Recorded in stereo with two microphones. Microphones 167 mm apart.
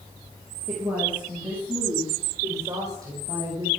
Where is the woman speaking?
5° right (ahead or behind), 7 m; by 3.7 s 25° right (ahead or behind), 8.5 m.